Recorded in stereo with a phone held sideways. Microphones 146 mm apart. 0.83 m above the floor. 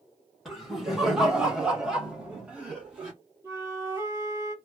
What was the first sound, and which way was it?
Laughter, centre (ahead or behind).